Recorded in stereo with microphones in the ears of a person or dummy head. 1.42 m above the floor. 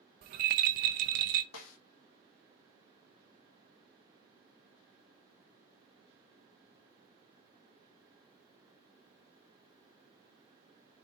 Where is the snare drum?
75° left (ahead or behind), 1.6 m.